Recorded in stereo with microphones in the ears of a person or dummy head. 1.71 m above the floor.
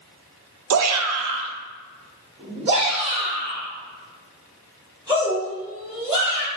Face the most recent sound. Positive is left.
turn(degrees=-15)  # may be behind; listen again after turning